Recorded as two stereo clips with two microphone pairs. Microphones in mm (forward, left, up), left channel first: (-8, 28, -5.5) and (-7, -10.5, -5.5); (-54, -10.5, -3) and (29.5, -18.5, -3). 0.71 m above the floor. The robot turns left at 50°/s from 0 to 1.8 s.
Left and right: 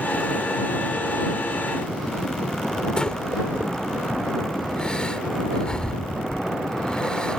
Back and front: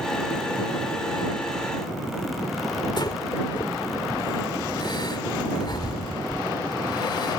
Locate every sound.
3.0 s breathing: 155° left